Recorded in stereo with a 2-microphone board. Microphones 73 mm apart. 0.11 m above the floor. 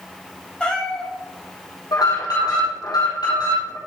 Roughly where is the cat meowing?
Centre.